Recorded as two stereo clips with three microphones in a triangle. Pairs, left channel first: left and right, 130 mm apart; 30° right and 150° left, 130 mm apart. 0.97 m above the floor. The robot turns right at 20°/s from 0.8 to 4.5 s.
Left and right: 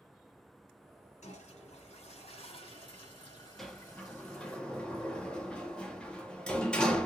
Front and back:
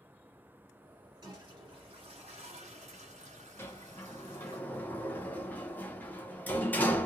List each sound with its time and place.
1.2 s a toilet flushing: 100° left, 1.8 m; by 4.6 s 170° left, 1.8 m
3.6 s a sliding door: 5° left, 0.6 m; by 7.1 s 20° left, 0.6 m